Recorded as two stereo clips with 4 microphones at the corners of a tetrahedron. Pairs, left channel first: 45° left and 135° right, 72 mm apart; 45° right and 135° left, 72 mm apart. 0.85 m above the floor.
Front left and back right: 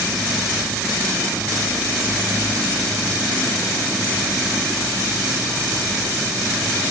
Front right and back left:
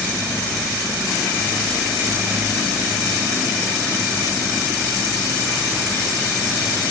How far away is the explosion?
I don't hear an explosion.